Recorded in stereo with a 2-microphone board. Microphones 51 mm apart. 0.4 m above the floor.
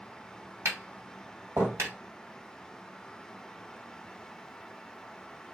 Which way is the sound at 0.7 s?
60° right (ahead or behind).